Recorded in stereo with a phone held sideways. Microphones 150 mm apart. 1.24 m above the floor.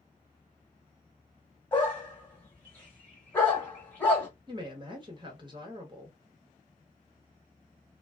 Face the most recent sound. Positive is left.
turn(degrees=-30)  # may be behind; listen again after turning